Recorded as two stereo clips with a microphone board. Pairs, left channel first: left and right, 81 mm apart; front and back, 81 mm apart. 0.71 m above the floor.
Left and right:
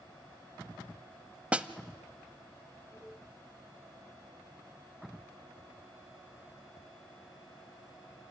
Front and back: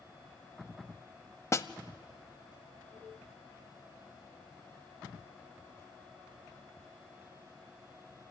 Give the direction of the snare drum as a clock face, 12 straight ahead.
1 o'clock.